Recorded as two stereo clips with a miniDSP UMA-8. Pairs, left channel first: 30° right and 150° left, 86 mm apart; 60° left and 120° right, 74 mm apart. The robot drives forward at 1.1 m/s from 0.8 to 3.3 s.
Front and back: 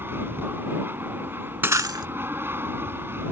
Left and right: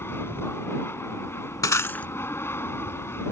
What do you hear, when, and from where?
0.0 s an aircraft: 100° left
1.6 s breaking glass: 90° left; by 2.1 s 135° left